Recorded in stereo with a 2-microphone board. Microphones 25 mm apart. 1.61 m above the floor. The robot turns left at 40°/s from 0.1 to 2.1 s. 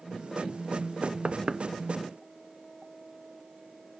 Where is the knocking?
45° right (ahead or behind), 0.8 m; by 1.6 s 25° right (ahead or behind), 0.8 m.